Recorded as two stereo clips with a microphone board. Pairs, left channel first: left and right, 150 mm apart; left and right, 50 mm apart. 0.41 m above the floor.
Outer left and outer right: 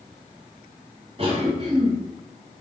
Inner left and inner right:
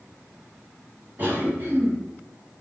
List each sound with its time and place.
1.2 s a cough: 35° right (ahead or behind), 1.7 m